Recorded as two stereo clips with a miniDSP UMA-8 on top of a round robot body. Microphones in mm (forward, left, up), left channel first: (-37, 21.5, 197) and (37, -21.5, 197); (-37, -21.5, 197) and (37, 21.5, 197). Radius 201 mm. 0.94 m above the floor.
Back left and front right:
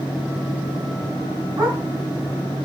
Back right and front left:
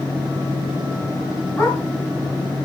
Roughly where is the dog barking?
Right.